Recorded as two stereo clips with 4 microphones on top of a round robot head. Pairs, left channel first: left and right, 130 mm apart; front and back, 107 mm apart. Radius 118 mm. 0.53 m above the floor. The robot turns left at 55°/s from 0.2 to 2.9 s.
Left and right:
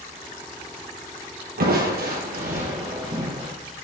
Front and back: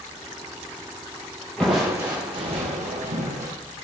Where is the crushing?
85° right, 4 m; by 3.5 s 155° right, 4 m.